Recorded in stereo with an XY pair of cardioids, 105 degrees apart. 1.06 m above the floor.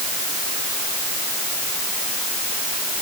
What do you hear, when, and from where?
Only background noise.